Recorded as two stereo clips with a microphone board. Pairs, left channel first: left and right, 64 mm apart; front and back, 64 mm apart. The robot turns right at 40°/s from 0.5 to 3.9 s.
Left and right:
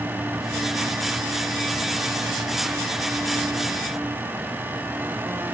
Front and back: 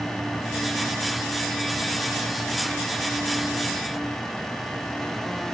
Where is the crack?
I don't hear a crack.